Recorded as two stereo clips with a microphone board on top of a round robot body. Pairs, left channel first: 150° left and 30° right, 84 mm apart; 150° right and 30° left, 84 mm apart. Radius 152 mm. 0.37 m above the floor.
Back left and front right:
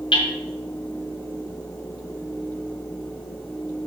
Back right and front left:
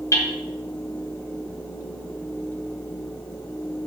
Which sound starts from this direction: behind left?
Hammering, at 0.1 s.